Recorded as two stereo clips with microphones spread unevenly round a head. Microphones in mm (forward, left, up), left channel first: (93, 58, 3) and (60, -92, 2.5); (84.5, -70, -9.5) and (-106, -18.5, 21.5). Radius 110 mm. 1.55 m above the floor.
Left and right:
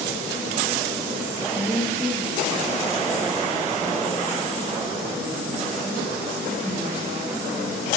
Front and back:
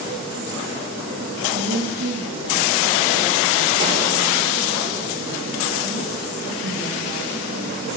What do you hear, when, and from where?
1.5 s a woman speaking: straight behind, 2.5 m